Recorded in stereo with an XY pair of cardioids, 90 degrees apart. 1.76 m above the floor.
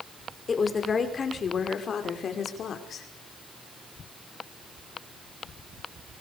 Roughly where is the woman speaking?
Ahead left.